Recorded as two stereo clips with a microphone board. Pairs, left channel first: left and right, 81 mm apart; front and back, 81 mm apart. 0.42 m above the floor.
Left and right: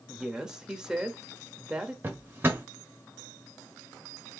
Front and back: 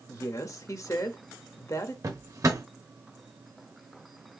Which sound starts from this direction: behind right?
A drawer, at 2.0 s.